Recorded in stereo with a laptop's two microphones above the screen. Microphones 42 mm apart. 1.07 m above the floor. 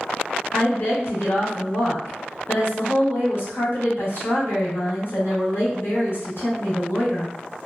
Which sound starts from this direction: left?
A woman speaking, at 0.5 s.